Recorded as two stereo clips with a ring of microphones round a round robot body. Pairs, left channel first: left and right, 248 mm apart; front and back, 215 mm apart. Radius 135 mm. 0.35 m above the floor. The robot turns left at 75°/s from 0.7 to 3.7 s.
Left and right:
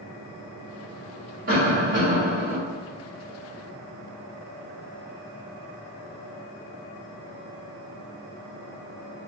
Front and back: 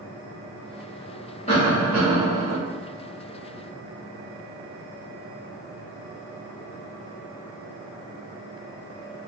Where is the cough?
50° right, 1.1 m; by 2.6 s 135° right, 1.1 m.